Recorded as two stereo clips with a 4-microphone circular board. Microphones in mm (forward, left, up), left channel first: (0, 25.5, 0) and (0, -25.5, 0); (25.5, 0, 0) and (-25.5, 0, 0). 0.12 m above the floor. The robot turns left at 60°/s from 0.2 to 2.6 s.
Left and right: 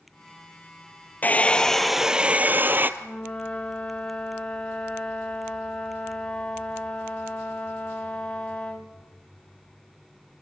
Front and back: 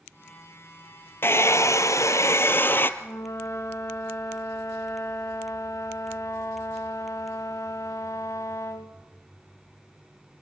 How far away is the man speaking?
No man speaking in this recording.